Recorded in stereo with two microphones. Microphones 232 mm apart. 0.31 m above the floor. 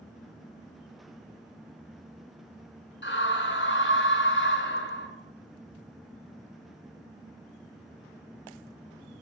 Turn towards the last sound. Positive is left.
turn(degrees=55)  # may be behind; listen again after turning